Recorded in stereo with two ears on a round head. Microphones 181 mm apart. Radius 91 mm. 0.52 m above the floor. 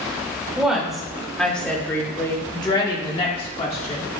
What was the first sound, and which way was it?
A woman speaking, 5° right (ahead or behind).